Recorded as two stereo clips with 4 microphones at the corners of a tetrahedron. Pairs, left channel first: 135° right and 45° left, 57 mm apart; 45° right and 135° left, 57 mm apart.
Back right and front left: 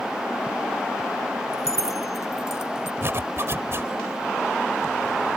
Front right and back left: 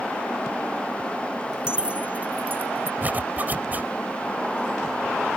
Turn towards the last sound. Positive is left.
turn(degrees=80)